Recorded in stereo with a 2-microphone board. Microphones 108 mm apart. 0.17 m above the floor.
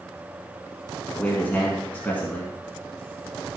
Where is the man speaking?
20° left (ahead or behind), 2 m.